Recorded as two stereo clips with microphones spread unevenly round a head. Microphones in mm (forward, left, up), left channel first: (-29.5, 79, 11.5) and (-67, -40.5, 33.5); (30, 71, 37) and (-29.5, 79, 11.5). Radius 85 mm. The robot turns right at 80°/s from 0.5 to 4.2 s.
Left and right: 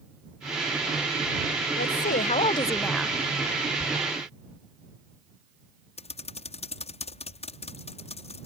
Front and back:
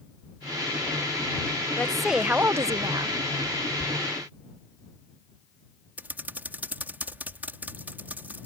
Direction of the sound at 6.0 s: 110° left.